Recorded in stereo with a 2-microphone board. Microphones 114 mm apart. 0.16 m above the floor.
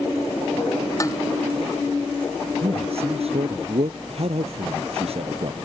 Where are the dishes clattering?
30° left (ahead or behind).